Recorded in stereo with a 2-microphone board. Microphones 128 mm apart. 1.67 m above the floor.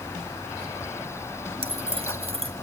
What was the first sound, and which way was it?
Keys jangling, 50° right (ahead or behind).